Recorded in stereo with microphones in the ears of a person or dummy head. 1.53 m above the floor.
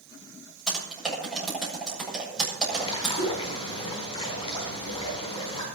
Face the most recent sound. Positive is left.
turn(degrees=30)  # may be behind; listen again after turning